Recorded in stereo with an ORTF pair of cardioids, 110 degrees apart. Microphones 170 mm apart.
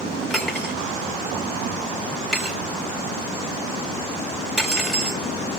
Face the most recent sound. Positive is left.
turn(degrees=0)